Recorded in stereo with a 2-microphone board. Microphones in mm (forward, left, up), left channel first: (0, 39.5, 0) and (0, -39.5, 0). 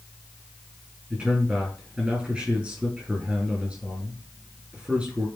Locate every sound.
1.1 s a man speaking: 10° right (ahead or behind), 5.5 m